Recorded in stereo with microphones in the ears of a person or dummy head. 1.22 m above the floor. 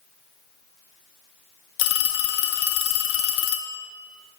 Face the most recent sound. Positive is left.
turn(degrees=70)  # may be behind; listen again after turning